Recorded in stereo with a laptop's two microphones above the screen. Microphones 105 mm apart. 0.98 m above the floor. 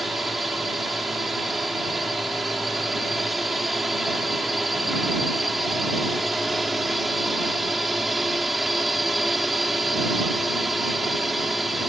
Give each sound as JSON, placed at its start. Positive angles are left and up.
{"t": 0.0, "sound": "a drone", "side_deg": 0}